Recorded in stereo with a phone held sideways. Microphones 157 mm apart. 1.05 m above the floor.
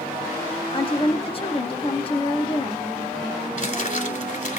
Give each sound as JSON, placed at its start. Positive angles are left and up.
{"t": 0.7, "sound": "a woman speaking", "side_deg": 35, "distance_m": 1.4}
{"t": 3.6, "sound": "crumpling", "side_deg": 55, "distance_m": 2.5}